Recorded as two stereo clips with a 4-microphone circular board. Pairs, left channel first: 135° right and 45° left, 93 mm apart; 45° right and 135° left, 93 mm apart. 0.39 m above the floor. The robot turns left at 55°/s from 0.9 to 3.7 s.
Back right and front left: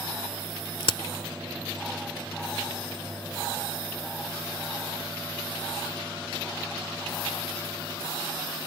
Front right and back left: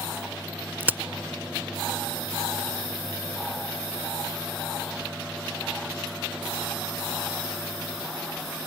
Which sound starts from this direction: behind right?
A crack, at 0.8 s.